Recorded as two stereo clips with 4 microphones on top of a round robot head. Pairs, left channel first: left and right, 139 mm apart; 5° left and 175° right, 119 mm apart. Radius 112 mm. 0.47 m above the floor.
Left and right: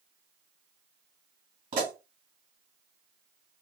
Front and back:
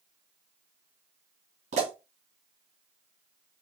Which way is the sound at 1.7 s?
150° right.